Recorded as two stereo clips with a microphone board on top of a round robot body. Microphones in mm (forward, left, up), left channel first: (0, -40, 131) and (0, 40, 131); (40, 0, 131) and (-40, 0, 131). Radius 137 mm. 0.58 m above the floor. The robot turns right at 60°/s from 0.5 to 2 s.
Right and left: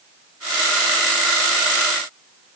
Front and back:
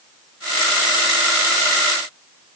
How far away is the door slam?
I don't hear a door slam.